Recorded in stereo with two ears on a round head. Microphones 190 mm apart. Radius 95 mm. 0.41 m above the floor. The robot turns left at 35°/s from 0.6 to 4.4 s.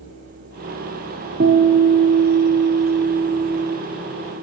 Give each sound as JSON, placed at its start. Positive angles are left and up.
{"t": 1.4, "sound": "a guitar", "azimuth_deg": -85, "distance_m": 0.7}